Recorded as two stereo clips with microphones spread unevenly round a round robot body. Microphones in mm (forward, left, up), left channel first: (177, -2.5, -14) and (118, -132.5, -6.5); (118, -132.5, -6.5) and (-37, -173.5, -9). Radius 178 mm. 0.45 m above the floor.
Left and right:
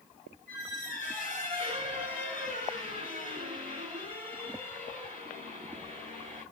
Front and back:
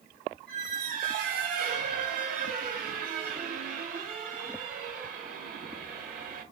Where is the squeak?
165° right, 1.2 m.